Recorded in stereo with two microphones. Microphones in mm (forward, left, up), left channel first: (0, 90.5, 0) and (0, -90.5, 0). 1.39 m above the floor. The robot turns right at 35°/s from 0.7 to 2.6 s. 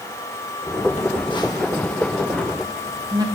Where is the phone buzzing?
40° left (ahead or behind), 1.6 m; by 3.2 s 20° right (ahead or behind), 1.6 m.